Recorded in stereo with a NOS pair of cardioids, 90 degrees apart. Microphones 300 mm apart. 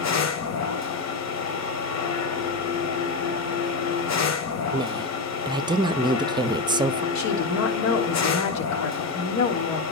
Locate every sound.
0.0 s a machine running: 60° left, 2 m
4.7 s a woman speaking: 15° right, 0.8 m
7.2 s a woman speaking: 65° left, 3 m